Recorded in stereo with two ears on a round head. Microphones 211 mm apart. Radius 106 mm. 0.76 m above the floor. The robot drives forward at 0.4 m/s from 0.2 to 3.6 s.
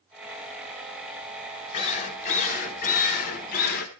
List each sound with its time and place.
1.7 s a drill: 30° left (ahead or behind), 2.5 m; by 3.9 s 40° left (ahead or behind), 2.0 m